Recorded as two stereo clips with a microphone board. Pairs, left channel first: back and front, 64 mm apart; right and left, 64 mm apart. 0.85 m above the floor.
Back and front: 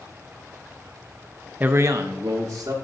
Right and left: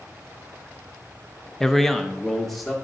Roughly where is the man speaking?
Ahead.